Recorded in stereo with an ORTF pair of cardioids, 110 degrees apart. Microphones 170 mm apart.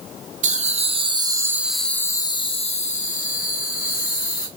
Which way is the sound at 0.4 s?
50° right.